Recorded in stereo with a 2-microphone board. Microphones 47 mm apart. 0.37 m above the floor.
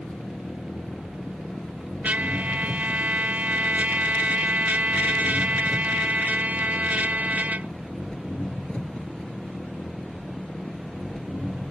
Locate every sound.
0.0 s an engine running: 25° left (ahead or behind)
2.0 s a trumpet: 40° right (ahead or behind)